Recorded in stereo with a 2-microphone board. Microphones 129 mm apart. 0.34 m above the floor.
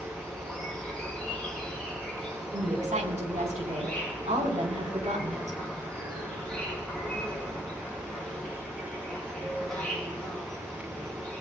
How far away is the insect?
About 4 m.